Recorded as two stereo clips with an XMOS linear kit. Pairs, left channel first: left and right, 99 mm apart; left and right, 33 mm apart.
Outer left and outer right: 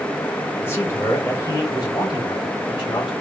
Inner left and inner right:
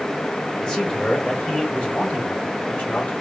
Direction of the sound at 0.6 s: 25° left (ahead or behind).